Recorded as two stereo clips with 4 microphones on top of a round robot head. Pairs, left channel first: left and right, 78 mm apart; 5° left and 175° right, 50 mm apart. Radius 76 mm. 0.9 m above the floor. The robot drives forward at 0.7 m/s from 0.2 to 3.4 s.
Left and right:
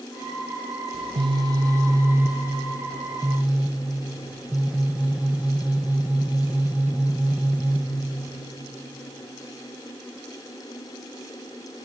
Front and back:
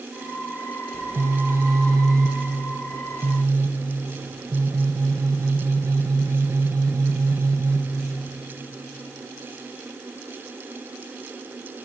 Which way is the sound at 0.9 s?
110° right.